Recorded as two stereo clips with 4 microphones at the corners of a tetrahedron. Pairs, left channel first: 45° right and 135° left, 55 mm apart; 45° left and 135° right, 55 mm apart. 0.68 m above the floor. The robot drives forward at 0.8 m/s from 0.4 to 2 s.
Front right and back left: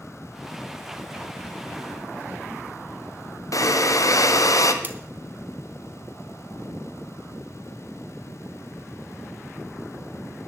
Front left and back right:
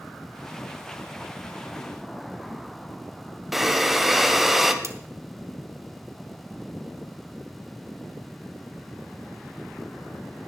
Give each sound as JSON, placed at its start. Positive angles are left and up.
{"t": 3.5, "sound": "breathing", "azimuth_deg": -50, "distance_m": 1.0}
{"t": 4.8, "sound": "cutlery clinking", "azimuth_deg": -170, "distance_m": 1.0}